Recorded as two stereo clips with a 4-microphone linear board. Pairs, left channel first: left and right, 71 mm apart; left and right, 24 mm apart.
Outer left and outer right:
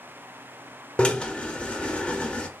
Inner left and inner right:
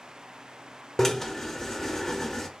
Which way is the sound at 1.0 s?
15° left (ahead or behind).